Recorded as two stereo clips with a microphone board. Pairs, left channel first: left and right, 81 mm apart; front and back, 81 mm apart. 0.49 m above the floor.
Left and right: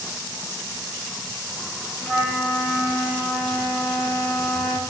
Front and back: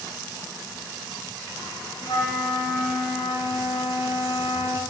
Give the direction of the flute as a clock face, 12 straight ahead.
12 o'clock.